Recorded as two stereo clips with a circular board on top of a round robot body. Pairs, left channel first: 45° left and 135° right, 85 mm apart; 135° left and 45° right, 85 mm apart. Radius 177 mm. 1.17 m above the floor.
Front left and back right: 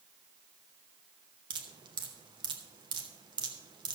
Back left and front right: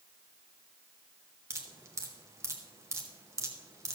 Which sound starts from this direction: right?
Dripping, at 1.5 s.